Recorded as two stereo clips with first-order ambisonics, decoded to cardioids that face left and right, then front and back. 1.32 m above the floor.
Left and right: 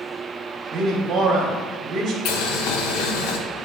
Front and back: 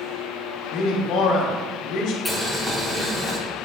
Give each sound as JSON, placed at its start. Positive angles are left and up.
{"t": 0.7, "sound": "a man speaking", "azimuth_deg": -35, "distance_m": 1.3}
{"t": 2.2, "sound": "boiling", "azimuth_deg": 90, "distance_m": 0.9}